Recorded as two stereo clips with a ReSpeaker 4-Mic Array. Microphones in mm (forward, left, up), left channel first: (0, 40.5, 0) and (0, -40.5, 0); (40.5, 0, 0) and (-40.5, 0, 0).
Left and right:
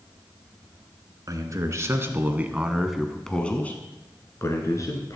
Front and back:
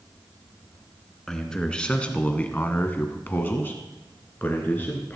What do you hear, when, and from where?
1.3 s a man speaking: 80° right, 1.5 m; by 5.2 s 60° left, 1.8 m